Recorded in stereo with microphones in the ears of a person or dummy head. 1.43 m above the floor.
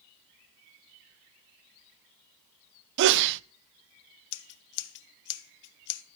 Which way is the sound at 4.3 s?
60° left (ahead or behind).